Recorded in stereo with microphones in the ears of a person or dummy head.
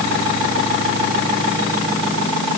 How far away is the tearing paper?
I don't hear tearing paper.